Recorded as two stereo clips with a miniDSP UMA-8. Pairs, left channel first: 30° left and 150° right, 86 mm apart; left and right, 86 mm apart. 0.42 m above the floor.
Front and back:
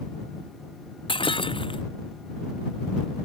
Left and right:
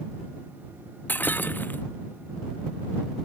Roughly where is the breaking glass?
Ahead.